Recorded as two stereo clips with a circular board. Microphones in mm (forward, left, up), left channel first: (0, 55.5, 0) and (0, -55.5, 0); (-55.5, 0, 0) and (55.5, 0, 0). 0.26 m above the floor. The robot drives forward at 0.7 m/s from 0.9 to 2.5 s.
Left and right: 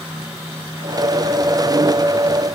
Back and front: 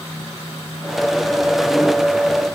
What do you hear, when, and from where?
Only background noise.